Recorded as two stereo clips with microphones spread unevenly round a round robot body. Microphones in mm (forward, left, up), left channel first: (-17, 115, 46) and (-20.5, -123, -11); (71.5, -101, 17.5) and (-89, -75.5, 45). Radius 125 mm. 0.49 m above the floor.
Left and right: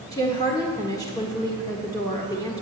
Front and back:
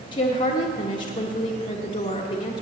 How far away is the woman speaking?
About 1.3 m.